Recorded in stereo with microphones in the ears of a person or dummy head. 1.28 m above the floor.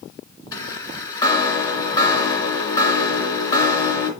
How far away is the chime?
About 2.5 m.